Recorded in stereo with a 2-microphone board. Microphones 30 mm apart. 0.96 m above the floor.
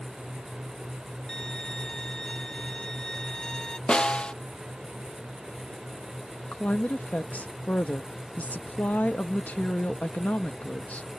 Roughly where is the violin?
Left.